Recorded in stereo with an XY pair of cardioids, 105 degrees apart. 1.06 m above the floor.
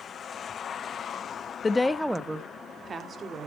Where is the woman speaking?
30° left, 1.0 m; by 3.5 s 45° right, 3 m.